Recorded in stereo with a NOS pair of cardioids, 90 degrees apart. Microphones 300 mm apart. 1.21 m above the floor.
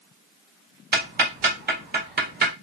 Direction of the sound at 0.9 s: 30° right.